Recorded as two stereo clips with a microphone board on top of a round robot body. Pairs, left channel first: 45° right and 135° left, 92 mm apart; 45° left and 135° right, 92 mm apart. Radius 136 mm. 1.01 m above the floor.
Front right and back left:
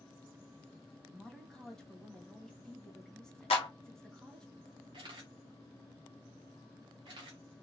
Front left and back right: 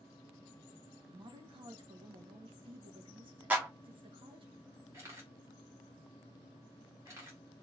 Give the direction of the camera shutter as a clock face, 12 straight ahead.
6 o'clock.